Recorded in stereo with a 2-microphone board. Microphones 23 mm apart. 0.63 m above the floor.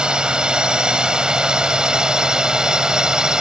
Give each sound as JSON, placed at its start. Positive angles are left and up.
{"t": 0.0, "sound": "a drone", "side_deg": -45}